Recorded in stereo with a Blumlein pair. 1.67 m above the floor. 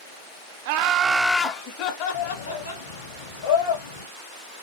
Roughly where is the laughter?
Ahead right.